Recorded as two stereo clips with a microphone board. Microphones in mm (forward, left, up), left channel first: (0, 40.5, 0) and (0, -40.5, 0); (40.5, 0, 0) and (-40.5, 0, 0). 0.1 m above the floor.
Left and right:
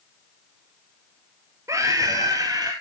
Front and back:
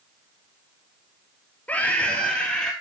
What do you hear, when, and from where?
1.7 s a scream: 65° right, 1.6 m; by 2.7 s 80° right, 2 m